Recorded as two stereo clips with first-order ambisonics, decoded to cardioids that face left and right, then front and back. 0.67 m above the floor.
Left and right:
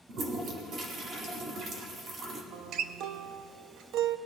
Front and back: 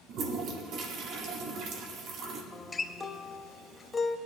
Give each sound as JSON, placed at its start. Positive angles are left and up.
{"t": 0.1, "sound": "a toilet flushing", "azimuth_deg": -140, "distance_m": 1.5}
{"t": 2.5, "sound": "a guitar", "azimuth_deg": -75, "distance_m": 0.5}